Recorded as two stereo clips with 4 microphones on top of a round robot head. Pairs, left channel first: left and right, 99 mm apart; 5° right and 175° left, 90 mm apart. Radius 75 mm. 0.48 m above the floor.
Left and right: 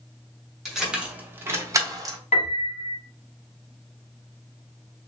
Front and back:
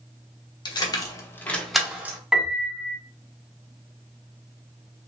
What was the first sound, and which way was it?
Keys jangling, straight ahead.